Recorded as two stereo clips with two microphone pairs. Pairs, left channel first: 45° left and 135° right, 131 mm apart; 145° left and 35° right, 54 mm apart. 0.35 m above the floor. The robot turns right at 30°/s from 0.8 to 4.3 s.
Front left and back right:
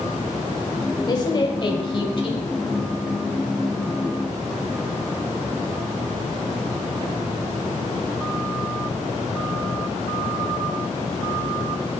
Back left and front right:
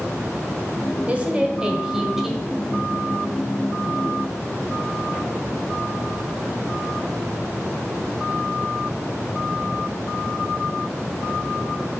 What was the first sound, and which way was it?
A woman speaking, 10° left.